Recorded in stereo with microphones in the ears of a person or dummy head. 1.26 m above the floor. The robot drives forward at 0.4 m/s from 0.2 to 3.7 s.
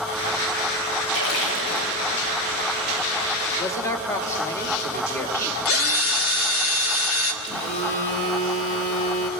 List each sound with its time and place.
1.1 s a splash: 80° left, 7.5 m
3.6 s a man speaking: 15° left (ahead or behind), 2.5 m
5.7 s a drill: 70° left (ahead or behind), 1.7 m
7.4 s a phone buzzing: 40° left (ahead or behind), 3 m